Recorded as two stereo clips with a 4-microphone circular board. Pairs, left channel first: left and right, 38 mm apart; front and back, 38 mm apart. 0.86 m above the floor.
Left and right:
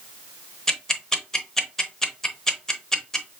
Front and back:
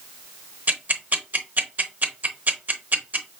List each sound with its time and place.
0.7 s ticking: 165° left, 0.8 m